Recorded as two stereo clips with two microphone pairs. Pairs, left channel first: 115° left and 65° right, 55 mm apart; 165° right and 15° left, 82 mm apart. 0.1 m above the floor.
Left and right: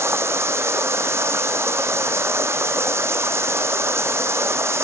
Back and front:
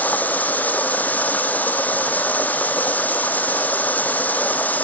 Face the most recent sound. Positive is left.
turn(degrees=-95)